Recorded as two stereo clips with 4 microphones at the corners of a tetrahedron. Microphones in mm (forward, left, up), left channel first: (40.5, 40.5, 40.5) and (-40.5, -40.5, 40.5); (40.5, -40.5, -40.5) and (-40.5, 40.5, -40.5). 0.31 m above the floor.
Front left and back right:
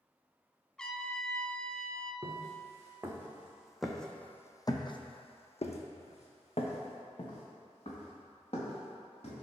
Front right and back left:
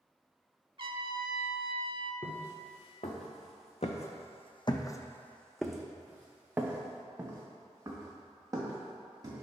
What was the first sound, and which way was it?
A trumpet, 125° left.